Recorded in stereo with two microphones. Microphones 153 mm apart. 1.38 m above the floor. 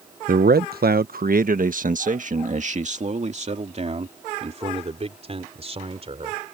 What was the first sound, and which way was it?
A man speaking, 70° right (ahead or behind).